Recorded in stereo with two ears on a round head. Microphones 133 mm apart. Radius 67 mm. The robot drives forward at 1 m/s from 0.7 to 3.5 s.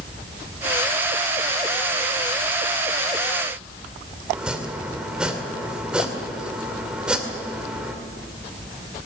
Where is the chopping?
5° right (ahead or behind), 2 m.